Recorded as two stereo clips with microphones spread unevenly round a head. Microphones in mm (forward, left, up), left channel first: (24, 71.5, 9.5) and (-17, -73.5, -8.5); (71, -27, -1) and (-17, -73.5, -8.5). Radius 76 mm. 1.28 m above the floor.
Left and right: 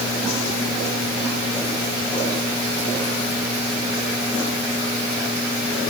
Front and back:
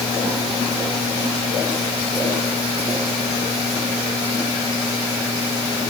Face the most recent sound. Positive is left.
No sound to turn to.